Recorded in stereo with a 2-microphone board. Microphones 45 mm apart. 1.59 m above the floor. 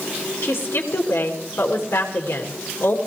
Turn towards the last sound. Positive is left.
turn(degrees=75)  # may be behind; listen again after turning